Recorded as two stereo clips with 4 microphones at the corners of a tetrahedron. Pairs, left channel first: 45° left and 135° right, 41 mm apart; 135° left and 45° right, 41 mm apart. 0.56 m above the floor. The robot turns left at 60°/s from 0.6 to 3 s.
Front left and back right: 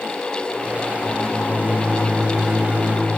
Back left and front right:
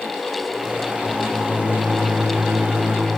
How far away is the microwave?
About 4 m.